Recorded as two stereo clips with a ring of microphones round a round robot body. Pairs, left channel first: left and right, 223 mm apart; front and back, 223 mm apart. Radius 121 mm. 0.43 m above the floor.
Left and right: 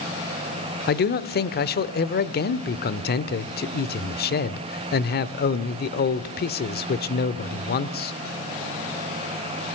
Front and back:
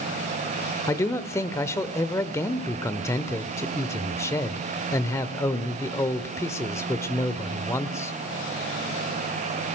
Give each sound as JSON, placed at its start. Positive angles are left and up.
{"t": 0.9, "sound": "a man speaking", "azimuth_deg": 75, "distance_m": 1.0}